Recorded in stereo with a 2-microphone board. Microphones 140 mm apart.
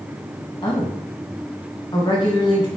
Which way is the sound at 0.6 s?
35° left (ahead or behind).